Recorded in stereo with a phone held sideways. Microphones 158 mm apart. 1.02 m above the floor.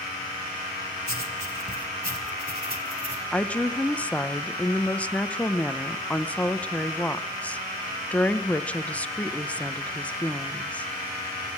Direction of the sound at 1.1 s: 80° right.